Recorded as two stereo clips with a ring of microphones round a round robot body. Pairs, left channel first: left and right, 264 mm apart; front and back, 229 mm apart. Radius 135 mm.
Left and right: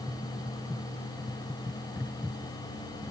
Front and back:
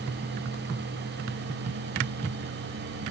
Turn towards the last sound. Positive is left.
No sound to turn to.